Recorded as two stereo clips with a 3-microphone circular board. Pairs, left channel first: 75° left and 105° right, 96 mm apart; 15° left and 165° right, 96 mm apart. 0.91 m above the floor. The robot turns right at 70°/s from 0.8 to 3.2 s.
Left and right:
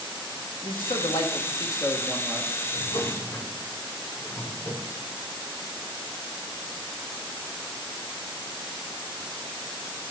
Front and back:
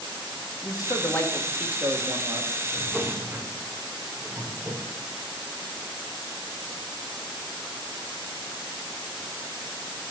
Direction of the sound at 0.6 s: 60° left.